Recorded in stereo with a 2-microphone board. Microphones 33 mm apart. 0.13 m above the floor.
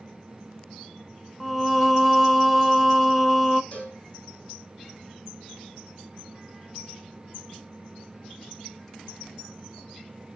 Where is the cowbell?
35° left (ahead or behind), 4 m.